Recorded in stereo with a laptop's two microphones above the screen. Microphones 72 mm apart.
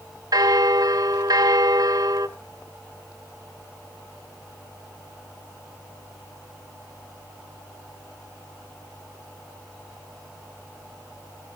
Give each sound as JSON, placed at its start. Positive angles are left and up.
{"t": 0.3, "sound": "a bell", "side_deg": -60, "distance_m": 0.7}